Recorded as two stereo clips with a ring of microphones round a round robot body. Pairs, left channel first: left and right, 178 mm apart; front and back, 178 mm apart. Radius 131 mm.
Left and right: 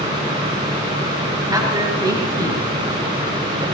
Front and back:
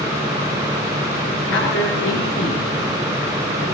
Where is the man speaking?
20° right, 6 m.